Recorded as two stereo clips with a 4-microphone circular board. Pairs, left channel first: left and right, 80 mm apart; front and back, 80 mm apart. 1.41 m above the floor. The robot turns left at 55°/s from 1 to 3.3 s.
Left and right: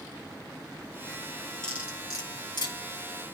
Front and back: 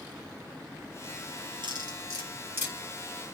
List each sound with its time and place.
1.6 s cutlery clinking: 170° left, 7 m; by 2.8 s 110° left, 7 m